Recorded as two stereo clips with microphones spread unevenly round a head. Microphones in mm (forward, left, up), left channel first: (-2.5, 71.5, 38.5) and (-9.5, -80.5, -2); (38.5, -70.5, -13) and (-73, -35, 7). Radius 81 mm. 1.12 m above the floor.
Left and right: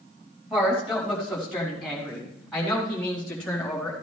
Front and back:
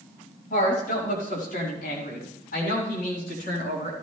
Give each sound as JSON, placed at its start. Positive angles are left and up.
{"t": 0.5, "sound": "a woman speaking", "azimuth_deg": -5, "distance_m": 6.0}